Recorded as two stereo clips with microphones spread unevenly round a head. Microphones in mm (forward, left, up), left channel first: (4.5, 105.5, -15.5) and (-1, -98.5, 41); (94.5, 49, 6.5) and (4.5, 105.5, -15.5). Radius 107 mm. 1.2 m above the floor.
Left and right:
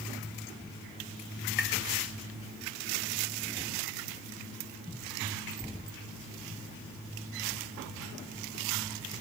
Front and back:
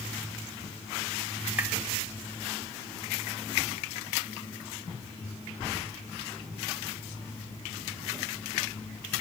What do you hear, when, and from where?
1.6 s tapping: 80° left, 0.9 m